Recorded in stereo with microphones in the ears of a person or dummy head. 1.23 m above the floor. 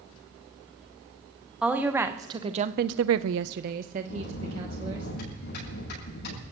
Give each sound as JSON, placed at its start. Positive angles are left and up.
{"t": 1.6, "sound": "a woman speaking", "side_deg": -5, "distance_m": 1.6}
{"t": 4.1, "sound": "a bell", "side_deg": 65, "distance_m": 10.0}